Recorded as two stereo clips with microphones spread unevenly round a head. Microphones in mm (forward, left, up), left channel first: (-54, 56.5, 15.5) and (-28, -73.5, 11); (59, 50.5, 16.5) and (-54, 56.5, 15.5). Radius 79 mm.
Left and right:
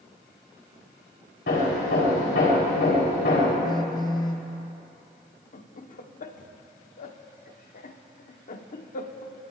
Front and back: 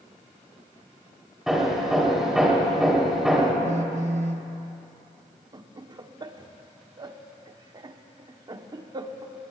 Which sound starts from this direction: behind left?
Laughter, at 5.5 s.